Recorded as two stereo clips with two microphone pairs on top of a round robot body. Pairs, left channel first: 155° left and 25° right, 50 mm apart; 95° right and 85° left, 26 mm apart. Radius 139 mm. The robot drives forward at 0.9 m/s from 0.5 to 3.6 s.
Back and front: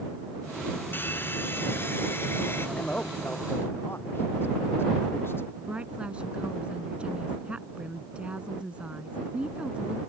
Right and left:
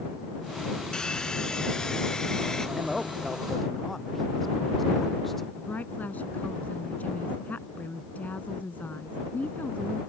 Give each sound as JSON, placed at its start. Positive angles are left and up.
{"t": 0.9, "sound": "a hair dryer", "azimuth_deg": -155}
{"t": 2.8, "sound": "a man speaking", "azimuth_deg": 175}
{"t": 5.6, "sound": "a woman speaking", "azimuth_deg": -95}